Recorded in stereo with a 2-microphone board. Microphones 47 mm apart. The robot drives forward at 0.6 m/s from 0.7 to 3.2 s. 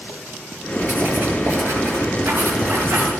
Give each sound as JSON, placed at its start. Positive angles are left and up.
{"t": 0.8, "sound": "writing", "side_deg": -45, "distance_m": 6.5}